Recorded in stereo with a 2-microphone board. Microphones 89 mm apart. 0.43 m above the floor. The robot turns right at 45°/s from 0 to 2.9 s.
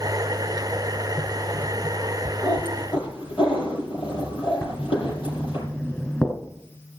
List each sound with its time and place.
2.4 s a cat meowing: 60° left (ahead or behind), 6 m; by 5.6 s 80° left, 6 m
4.6 s writing: 20° left (ahead or behind), 3 m